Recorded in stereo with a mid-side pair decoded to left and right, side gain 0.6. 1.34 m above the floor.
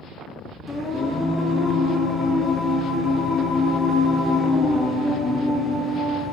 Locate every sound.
0.7 s singing: 20° left, 2.5 m